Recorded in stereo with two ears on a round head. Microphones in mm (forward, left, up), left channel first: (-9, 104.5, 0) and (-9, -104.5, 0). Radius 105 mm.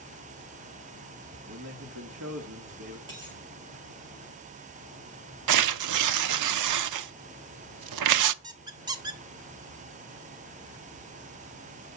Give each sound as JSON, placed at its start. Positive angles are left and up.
{"t": 1.5, "sound": "a man speaking", "side_deg": -60, "distance_m": 1.7}
{"t": 3.1, "sound": "a dropped coin", "side_deg": -20, "distance_m": 6.5}
{"t": 5.5, "sound": "tearing paper", "side_deg": -80, "distance_m": 0.5}
{"t": 8.4, "sound": "a squeak", "side_deg": -15, "distance_m": 0.8}